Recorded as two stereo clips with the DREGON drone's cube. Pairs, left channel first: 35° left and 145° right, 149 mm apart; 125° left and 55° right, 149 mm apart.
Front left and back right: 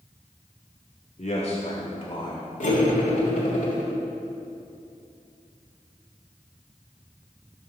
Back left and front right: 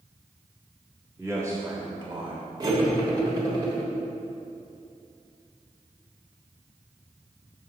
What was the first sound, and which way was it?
A man speaking, 15° left.